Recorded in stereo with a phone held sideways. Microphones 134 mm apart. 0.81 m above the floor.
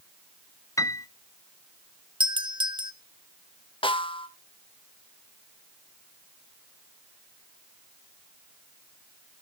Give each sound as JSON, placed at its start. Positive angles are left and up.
{"t": 0.8, "sound": "a piano", "side_deg": 25, "distance_m": 0.5}
{"t": 2.2, "sound": "a doorbell", "side_deg": -35, "distance_m": 0.9}
{"t": 3.8, "sound": "a snare drum", "side_deg": 40, "distance_m": 0.7}